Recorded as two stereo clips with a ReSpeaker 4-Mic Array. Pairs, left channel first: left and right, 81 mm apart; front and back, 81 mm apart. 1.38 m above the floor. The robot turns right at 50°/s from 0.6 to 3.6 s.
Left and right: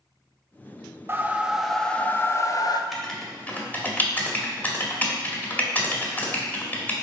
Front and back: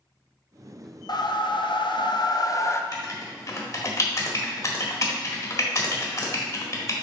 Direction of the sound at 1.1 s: 30° right.